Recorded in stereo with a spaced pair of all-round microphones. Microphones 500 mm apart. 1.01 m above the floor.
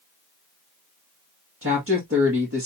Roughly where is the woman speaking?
Right.